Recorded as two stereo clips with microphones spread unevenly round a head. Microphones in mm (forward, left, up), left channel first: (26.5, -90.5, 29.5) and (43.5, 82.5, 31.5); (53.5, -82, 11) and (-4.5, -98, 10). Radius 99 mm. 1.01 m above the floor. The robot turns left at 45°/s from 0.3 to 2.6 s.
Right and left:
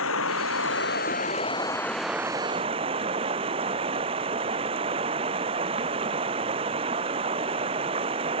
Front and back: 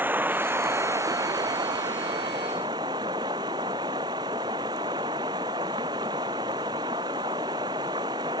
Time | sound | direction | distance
0.0 | running water | 110° right | ?